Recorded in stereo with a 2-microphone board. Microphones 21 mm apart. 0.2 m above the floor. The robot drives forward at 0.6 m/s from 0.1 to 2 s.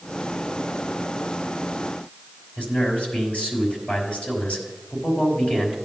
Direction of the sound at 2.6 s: 70° left (ahead or behind).